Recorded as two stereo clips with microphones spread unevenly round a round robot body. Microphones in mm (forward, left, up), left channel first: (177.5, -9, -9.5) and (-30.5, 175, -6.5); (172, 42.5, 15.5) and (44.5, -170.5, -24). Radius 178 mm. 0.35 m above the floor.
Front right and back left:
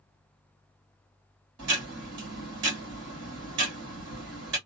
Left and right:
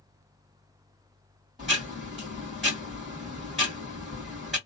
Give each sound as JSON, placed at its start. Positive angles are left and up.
{"t": 1.6, "sound": "ticking", "azimuth_deg": 155, "distance_m": 1.8}